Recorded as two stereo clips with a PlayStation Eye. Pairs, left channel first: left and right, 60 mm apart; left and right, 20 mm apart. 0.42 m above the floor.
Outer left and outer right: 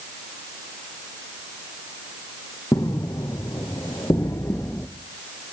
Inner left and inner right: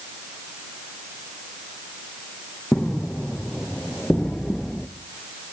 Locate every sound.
2.7 s footsteps: 70° left (ahead or behind), 3.5 m; by 4.9 s 35° left (ahead or behind), 1.7 m